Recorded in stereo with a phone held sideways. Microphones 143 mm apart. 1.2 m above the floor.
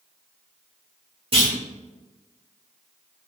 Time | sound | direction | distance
1.3 | a clunk | 40° right (ahead or behind) | 1.7 m